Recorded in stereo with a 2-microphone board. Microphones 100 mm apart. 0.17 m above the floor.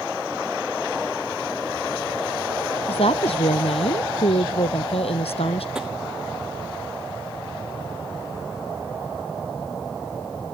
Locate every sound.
2.9 s a woman speaking: 80° left
5.8 s tapping: 5° right (ahead or behind)